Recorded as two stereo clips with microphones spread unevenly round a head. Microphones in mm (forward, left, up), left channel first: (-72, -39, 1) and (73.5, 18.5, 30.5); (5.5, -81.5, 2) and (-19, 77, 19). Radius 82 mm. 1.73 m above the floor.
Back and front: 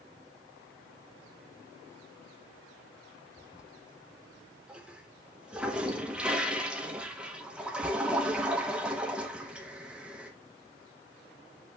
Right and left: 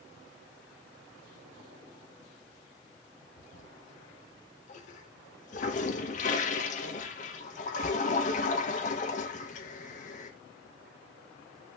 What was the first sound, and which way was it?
A toilet flushing, 50° right.